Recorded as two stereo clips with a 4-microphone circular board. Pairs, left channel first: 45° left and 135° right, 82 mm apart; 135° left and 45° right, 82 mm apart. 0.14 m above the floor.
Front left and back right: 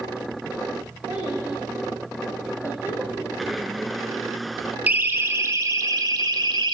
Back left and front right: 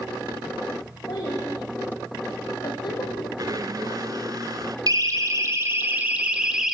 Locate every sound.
1.1 s a child speaking: 165° left, 7.5 m; by 3.3 s 155° left, 4.5 m
3.4 s a blender: 45° right, 0.7 m
4.9 s a siren: 70° right, 2 m; by 6.8 s 130° right, 2 m